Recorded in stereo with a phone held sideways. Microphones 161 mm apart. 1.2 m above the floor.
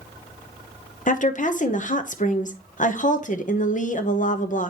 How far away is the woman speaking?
About 0.9 m.